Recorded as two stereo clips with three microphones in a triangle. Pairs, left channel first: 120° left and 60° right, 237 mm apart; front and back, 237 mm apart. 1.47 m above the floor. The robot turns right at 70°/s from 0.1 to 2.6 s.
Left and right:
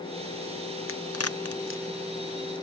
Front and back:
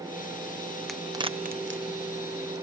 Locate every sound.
0.9 s a crack: 90° left; by 2.6 s 150° right